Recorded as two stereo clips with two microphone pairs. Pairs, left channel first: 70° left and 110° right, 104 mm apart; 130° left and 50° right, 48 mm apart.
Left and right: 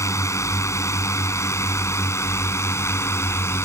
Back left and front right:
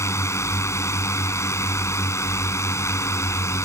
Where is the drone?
130° left; by 3.6 s 135° left.